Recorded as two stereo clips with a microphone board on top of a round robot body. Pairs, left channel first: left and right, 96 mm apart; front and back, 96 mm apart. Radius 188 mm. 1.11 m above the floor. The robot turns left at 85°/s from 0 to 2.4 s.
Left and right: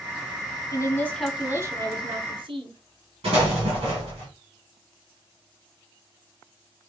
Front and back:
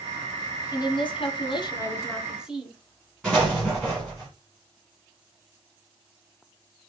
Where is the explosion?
85° right, 1.2 m.